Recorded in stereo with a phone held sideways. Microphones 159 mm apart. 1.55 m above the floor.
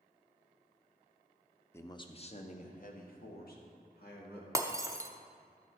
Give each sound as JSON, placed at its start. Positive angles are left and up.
{"t": 1.7, "sound": "a man speaking", "side_deg": 15, "distance_m": 0.7}
{"t": 4.5, "sound": "breaking glass", "side_deg": -20, "distance_m": 0.6}